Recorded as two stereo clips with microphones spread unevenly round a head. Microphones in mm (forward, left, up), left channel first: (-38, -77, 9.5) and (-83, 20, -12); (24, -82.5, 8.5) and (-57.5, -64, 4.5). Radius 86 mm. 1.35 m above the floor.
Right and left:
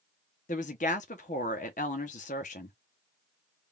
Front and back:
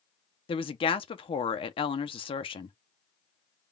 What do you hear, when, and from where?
0.5 s a woman speaking: 20° right, 0.8 m